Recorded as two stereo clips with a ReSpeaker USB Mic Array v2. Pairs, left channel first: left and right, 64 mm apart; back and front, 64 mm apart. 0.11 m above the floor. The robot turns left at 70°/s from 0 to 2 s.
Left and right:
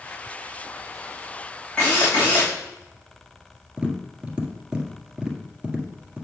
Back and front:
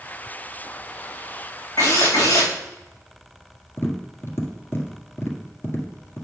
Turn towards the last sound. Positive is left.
turn(degrees=-160)